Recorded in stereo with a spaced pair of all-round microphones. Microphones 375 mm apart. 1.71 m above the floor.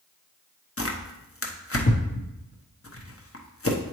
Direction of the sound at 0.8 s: 35° left (ahead or behind).